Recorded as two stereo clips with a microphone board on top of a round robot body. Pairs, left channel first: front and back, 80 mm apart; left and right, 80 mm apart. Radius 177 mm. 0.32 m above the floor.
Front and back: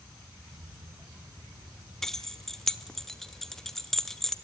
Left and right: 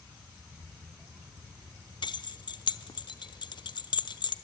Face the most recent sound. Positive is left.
turn(degrees=85)